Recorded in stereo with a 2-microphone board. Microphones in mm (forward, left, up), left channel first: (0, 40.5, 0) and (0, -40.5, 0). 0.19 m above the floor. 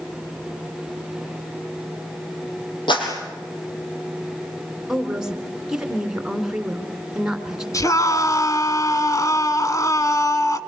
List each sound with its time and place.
2.9 s a clap: 75° left (ahead or behind), 5.5 m
4.9 s a woman speaking: 5° right (ahead or behind), 2.5 m
7.7 s a scream: 45° left (ahead or behind), 1.6 m